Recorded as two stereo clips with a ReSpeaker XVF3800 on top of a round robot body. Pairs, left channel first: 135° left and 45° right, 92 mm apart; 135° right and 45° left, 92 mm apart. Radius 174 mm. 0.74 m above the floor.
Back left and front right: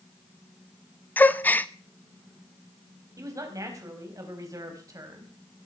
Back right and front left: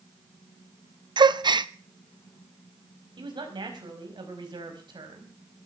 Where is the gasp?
65° left, 1.0 m.